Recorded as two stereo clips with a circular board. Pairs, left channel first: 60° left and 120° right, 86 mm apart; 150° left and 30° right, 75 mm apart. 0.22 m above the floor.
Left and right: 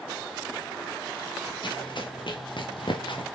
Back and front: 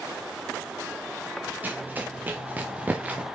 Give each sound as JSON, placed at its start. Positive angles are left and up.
{"t": 1.6, "sound": "running footsteps", "azimuth_deg": 35, "distance_m": 2.5}